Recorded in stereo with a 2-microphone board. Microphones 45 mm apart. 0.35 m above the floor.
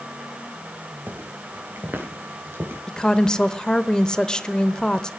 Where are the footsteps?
50° right (ahead or behind), 5 m; by 2.8 s 65° right (ahead or behind), 5 m.